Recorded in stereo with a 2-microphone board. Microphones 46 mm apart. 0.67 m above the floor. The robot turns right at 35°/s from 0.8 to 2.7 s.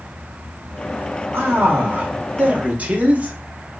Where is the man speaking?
90° right, 0.7 m; by 3.4 s 45° right, 0.7 m.